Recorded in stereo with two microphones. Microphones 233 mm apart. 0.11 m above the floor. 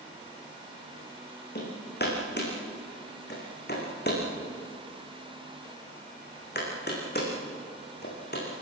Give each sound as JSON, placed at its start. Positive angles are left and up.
{"t": 1.6, "sound": "hammering", "side_deg": 45, "distance_m": 7.0}